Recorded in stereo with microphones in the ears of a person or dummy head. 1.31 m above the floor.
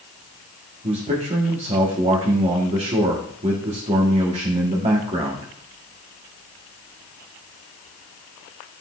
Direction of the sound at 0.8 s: 25° right (ahead or behind).